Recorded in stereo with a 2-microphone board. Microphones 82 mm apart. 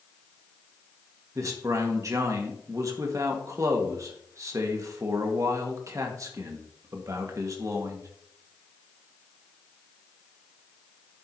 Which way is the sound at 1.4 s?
40° right (ahead or behind).